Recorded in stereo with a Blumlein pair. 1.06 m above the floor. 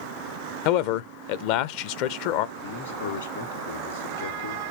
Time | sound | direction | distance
0.7 | a man speaking | 45° left | 0.5 m
2.6 | a man speaking | 65° left | 1.5 m